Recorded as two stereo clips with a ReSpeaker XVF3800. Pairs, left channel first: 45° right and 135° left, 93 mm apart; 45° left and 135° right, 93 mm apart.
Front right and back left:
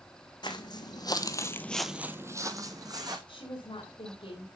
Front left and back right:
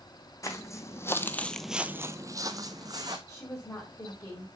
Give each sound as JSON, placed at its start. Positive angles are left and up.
{"t": 0.4, "sound": "footsteps", "azimuth_deg": -10, "distance_m": 1.6}
{"t": 3.3, "sound": "a woman speaking", "azimuth_deg": -15, "distance_m": 3.0}